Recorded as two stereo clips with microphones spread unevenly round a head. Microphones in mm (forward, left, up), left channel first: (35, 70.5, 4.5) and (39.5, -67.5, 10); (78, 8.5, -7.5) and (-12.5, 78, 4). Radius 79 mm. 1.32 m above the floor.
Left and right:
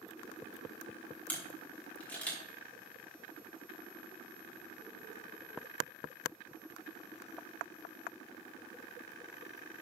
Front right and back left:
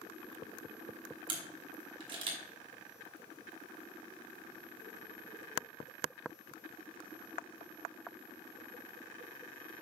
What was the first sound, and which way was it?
A camera shutter, 170° left.